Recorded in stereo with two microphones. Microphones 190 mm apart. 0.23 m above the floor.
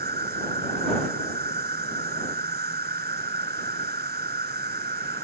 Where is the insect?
60° right (ahead or behind).